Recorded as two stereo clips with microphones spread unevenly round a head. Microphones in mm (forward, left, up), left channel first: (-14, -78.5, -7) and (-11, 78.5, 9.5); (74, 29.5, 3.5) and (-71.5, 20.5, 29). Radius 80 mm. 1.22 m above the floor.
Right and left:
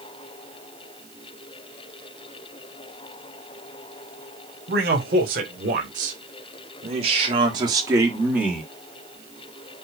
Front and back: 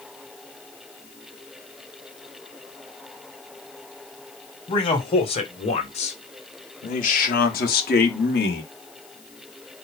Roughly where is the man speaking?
Ahead left.